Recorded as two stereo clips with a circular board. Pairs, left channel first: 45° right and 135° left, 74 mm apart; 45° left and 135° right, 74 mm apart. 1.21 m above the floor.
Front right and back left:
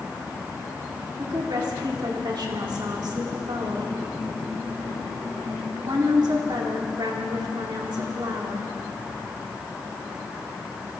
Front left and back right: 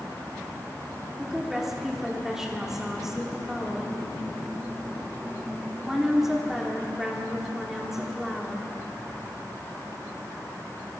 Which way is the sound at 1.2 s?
140° left.